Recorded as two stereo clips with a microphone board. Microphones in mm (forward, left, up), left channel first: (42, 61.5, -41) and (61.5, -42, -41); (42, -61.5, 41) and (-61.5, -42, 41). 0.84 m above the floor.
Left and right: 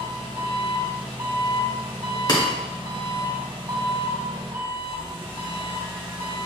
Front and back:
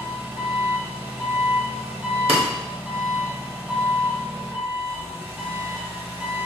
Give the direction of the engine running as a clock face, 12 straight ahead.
4 o'clock.